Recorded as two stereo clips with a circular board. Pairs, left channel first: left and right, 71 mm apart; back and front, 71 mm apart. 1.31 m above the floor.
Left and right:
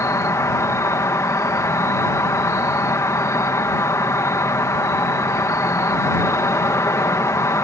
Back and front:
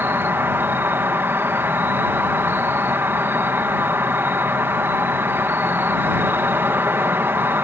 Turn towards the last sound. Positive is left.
turn(degrees=55)